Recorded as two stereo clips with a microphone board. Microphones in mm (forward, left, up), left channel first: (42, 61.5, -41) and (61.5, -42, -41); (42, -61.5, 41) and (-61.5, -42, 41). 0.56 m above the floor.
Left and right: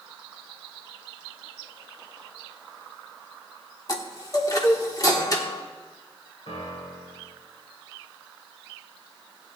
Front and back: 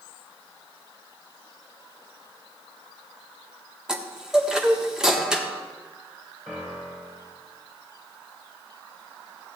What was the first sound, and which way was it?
A chime, 90° left.